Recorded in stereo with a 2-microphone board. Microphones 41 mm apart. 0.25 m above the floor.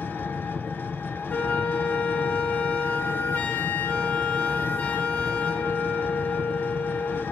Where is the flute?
45° left (ahead or behind), 1.5 m.